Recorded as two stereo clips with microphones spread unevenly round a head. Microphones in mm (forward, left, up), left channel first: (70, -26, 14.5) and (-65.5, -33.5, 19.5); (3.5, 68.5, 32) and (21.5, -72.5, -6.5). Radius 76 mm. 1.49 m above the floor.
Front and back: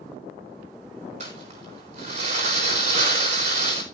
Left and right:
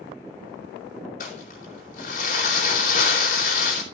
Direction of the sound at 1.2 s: 135° left.